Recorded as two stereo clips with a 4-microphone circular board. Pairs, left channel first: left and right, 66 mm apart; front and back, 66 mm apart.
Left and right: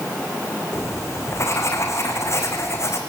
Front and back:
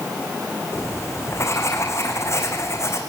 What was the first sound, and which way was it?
Writing, 45° left.